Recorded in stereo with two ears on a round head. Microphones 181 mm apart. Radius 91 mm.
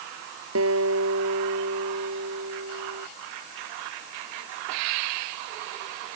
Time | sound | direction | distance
0.6 | a guitar | 80° right | ?